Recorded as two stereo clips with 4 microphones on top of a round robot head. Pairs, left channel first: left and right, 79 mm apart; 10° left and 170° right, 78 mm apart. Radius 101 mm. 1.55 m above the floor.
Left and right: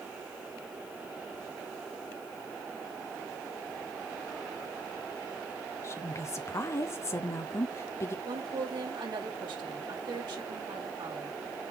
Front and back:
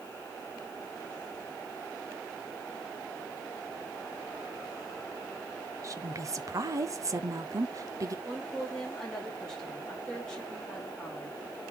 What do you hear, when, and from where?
5.8 s a woman speaking: 145° left, 0.8 m
8.2 s a woman speaking: 75° right, 3 m